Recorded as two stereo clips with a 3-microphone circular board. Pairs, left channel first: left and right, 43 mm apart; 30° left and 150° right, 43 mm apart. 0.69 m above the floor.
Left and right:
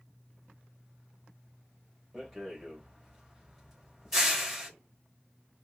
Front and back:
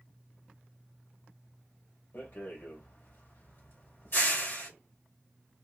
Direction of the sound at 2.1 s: 5° right.